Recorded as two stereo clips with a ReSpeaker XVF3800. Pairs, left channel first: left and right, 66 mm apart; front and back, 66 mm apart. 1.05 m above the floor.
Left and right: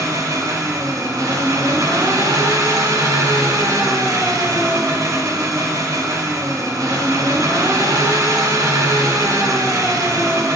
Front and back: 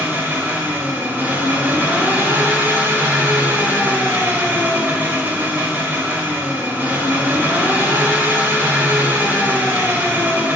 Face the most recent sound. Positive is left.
turn(degrees=-115)